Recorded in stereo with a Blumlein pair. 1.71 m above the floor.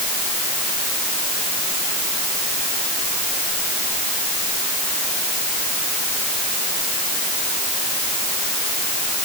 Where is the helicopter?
I don't hear a helicopter.